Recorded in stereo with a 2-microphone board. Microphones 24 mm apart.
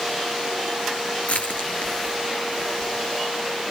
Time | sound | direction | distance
1.3 | crushing | 80° left | 3.5 m